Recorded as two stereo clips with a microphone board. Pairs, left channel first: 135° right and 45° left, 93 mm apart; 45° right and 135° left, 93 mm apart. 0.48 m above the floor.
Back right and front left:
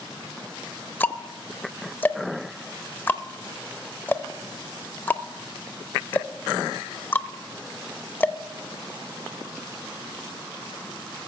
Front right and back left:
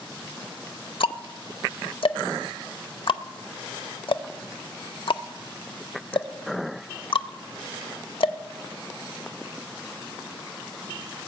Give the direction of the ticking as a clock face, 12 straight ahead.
2 o'clock.